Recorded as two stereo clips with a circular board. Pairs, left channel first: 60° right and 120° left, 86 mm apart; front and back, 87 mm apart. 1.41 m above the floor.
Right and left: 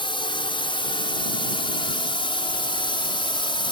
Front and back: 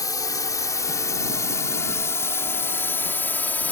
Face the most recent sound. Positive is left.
turn(degrees=-70)